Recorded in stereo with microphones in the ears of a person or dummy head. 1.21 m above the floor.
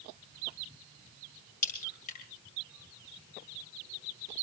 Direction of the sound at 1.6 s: 45° left (ahead or behind).